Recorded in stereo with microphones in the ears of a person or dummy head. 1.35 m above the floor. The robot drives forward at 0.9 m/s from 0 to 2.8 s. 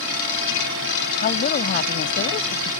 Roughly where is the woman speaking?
Left.